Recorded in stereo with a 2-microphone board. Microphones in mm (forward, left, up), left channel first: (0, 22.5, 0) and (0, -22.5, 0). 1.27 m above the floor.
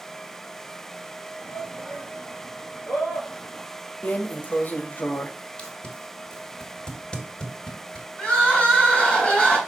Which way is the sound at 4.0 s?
40° left (ahead or behind).